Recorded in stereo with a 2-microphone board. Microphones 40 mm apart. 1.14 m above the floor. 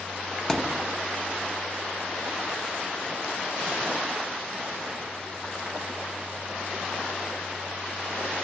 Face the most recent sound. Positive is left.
turn(degrees=10)  # may be behind; listen again after turning